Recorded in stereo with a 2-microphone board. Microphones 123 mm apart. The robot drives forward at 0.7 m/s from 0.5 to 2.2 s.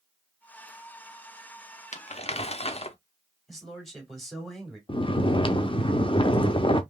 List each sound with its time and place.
1.9 s crumpling: 70° left (ahead or behind), 0.5 m; by 3.0 s 55° left (ahead or behind), 0.6 m
3.5 s a man speaking: centre (ahead or behind), 2.5 m
4.9 s snoring: 45° left (ahead or behind), 0.6 m